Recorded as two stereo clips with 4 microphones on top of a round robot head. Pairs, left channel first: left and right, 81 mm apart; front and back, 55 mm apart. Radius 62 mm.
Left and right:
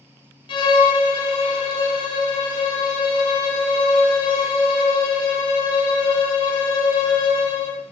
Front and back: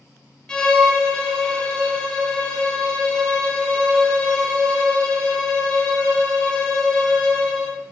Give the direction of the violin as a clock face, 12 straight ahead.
9 o'clock.